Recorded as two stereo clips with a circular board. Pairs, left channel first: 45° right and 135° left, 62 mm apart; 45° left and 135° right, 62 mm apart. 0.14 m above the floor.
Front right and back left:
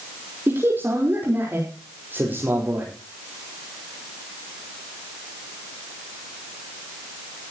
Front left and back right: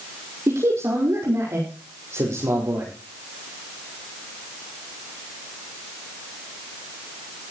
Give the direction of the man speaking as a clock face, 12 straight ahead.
6 o'clock.